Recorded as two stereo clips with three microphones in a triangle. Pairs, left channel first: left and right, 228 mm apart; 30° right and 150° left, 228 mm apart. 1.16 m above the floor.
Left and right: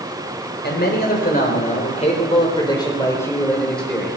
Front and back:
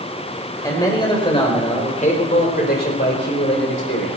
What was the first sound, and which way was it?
A man speaking, 45° left.